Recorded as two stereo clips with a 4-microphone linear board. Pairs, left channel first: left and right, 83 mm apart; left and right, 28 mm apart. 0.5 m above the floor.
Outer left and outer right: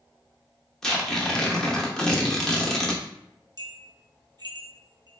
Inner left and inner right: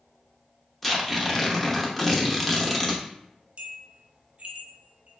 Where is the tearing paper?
5° left (ahead or behind), 0.7 m.